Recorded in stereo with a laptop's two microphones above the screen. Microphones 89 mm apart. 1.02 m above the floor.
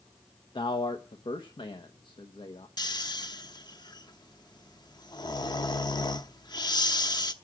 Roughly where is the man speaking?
Left.